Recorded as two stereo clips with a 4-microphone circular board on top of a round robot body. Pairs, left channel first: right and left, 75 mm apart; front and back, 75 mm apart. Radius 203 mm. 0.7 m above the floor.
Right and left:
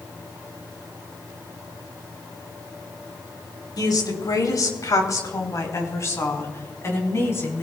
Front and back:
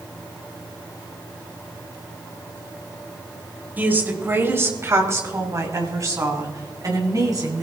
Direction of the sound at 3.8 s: 115° right.